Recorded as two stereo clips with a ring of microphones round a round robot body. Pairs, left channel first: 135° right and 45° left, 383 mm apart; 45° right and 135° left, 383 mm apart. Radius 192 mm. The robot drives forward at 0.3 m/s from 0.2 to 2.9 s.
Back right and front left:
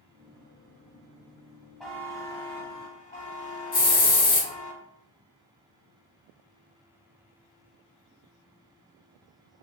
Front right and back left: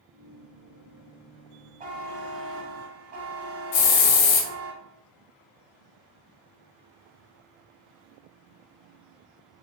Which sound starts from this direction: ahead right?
A hiss, at 3.7 s.